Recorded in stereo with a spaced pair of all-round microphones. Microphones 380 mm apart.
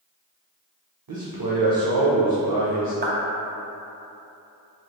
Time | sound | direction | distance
1.1 | a man speaking | 60° right (ahead or behind) | 0.5 m
3.0 | a clap | 25° right (ahead or behind) | 0.6 m